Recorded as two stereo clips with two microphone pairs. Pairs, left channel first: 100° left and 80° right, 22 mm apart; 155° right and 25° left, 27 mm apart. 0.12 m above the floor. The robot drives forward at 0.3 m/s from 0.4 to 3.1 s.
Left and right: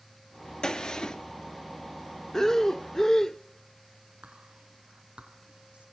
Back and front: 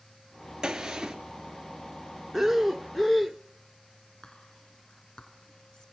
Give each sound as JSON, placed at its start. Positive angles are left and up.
{"t": 0.6, "sound": "a gunshot", "azimuth_deg": 90, "distance_m": 2.5}
{"t": 2.3, "sound": "breathing", "azimuth_deg": 95, "distance_m": 0.7}
{"t": 4.2, "sound": "whispering", "azimuth_deg": -105, "distance_m": 4.0}